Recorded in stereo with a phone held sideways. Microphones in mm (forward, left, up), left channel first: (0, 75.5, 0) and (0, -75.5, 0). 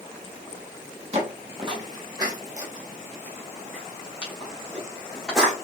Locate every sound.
1.1 s footsteps: 40° right (ahead or behind), 1.2 m; by 5.5 s centre (ahead or behind), 2.5 m